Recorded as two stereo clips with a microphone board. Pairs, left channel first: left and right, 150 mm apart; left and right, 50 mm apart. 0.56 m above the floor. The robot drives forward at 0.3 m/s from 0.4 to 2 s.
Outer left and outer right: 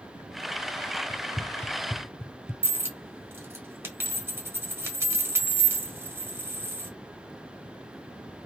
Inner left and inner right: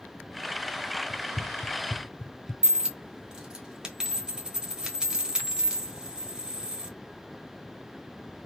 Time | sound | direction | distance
1.1 | running footsteps | 15° left (ahead or behind) | 0.6 m
2.6 | a dropped coin | 15° right (ahead or behind) | 1.3 m